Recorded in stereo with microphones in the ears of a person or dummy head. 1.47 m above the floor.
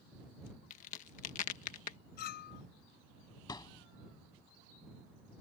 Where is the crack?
40° left (ahead or behind).